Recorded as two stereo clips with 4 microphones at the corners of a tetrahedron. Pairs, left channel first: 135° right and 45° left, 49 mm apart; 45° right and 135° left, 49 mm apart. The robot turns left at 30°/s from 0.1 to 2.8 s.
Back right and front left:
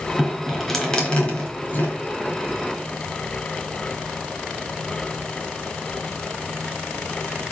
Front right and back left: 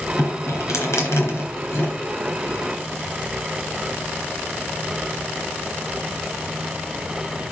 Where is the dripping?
40° right, 3 m; by 2.0 s 90° right, 3 m.